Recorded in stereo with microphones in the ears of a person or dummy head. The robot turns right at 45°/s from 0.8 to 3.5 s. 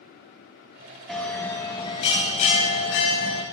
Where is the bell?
5° left, 1.2 m; by 3.4 s 110° left, 1.2 m.